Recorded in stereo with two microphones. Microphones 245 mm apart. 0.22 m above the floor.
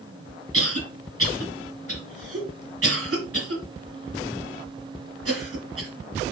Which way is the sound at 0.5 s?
65° right (ahead or behind).